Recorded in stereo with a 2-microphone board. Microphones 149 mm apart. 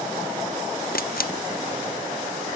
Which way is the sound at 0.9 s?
90° left.